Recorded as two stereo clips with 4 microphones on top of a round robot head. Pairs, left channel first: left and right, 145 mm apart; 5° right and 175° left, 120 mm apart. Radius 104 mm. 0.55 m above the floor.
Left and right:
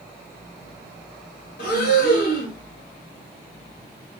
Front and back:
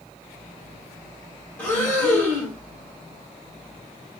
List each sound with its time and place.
1.6 s breathing: 70° left, 2.5 m